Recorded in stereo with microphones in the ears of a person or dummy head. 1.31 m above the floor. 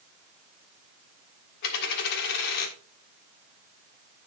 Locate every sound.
1.6 s a dropped coin: 60° left (ahead or behind), 1.4 m